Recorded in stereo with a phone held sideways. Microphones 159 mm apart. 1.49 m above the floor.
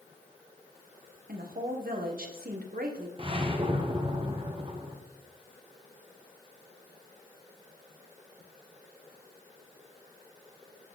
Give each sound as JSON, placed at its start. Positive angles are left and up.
{"t": 1.3, "sound": "a woman speaking", "side_deg": -75, "distance_m": 1.2}
{"t": 3.2, "sound": "a whoosh", "side_deg": -35, "distance_m": 1.2}